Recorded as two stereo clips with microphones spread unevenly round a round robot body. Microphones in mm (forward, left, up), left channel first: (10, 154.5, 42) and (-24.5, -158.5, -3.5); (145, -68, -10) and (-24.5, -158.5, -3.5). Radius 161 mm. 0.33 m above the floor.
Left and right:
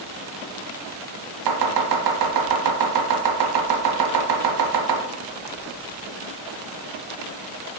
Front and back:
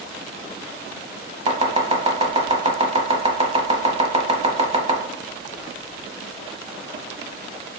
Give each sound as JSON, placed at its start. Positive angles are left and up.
{"t": 1.5, "sound": "chopping", "azimuth_deg": -95, "distance_m": 1.0}